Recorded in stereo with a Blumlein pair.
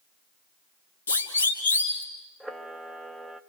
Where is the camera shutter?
5° right, 1.4 m.